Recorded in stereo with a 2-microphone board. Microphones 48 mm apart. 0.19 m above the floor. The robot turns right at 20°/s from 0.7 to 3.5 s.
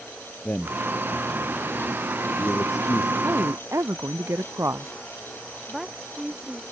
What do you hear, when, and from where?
0.5 s a man speaking: 45° left (ahead or behind); by 3.1 s 70° left (ahead or behind)
3.2 s a woman speaking: 65° right (ahead or behind); by 4.9 s 70° right (ahead or behind)
5.7 s a woman speaking: 5° right (ahead or behind)